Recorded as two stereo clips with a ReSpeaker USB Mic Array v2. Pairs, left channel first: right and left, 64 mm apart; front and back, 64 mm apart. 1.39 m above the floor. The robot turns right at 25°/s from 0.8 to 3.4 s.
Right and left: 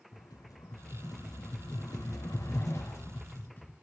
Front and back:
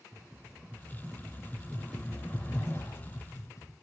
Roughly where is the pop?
No pop in this recording.